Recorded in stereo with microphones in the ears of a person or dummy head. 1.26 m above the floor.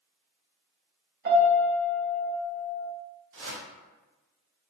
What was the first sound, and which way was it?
A piano, 55° right (ahead or behind).